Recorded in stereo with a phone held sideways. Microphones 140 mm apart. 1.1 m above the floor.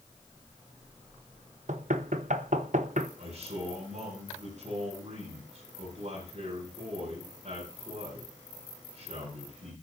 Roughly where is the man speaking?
Right.